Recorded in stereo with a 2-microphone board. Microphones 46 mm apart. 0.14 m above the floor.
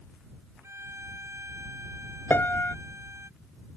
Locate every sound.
0.6 s a violin: 75° right (ahead or behind)
2.3 s a piano: 50° left (ahead or behind)